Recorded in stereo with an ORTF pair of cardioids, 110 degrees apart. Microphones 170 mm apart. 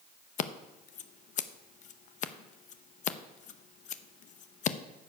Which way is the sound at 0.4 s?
50° left.